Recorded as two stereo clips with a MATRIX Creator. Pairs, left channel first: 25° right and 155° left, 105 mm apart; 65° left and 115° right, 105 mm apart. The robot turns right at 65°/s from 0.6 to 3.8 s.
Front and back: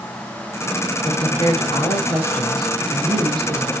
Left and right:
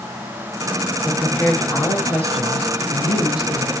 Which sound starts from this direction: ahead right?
A woman speaking, at 1.1 s.